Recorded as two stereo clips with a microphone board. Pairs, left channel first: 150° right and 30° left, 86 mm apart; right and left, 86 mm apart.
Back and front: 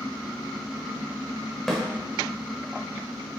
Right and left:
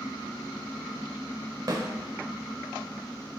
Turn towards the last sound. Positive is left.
turn(degrees=125)